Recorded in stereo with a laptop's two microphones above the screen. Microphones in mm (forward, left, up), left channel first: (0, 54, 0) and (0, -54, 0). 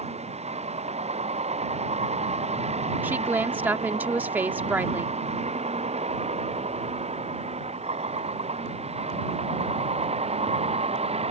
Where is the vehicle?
90° right; by 11.3 s 75° right (ahead or behind).